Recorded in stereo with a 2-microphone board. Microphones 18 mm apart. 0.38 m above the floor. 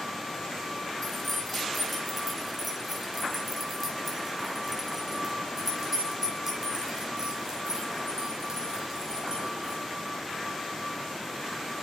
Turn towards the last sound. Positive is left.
turn(degrees=-40)  # may be behind; listen again after turning